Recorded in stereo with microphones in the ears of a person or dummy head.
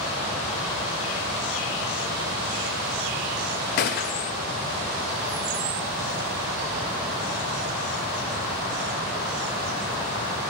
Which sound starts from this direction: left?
A gunshot, at 3.8 s.